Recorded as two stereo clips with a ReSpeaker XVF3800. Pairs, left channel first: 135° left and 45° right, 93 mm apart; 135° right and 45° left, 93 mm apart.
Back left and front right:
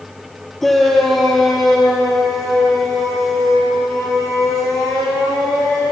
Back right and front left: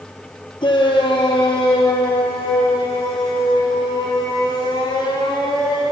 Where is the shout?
140° right, 1.9 m; by 5.8 s 135° right, 8.5 m.